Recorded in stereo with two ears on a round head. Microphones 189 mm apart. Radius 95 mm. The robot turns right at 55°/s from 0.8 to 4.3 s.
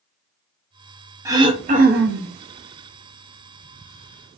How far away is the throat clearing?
About 0.5 m.